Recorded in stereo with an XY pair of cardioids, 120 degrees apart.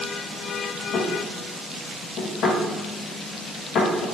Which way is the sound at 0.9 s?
70° left.